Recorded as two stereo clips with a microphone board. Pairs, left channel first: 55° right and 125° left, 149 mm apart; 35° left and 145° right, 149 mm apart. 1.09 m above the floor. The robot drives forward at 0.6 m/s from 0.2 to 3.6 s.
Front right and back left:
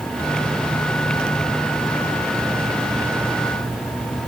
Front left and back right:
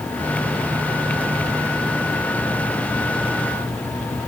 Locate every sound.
Only background noise.